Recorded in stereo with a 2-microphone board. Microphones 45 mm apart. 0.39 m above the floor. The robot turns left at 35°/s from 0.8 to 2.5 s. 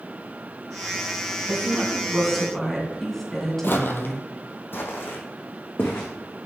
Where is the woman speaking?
150° right, 3 m; by 4.2 s 175° left, 3 m.